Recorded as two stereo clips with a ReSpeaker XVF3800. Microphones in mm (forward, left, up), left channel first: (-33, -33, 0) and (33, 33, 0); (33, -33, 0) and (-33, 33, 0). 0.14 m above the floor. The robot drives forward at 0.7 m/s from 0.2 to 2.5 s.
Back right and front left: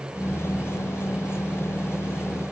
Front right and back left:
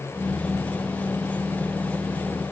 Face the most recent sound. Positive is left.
No sound to turn to.